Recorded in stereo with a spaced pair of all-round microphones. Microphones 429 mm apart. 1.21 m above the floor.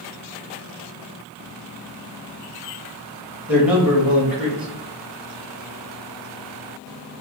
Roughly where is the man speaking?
Centre.